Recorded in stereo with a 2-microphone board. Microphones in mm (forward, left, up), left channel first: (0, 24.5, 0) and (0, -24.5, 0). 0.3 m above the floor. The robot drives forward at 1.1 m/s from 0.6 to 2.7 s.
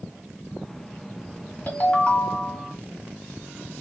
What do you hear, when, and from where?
1.7 s a ringtone: 35° left (ahead or behind), 1.6 m; by 2.8 s 20° left (ahead or behind), 2.5 m